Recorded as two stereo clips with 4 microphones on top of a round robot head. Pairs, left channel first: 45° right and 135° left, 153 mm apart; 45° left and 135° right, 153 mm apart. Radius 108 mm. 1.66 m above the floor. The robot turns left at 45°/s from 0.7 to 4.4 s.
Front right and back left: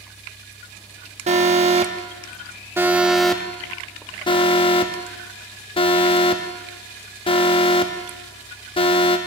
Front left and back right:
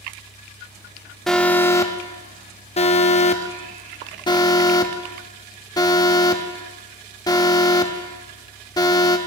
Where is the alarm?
135° left, 0.8 m; by 9.2 s 10° right, 0.8 m.